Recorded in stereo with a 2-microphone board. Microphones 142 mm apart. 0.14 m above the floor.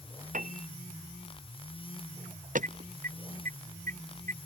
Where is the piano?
65° right (ahead or behind).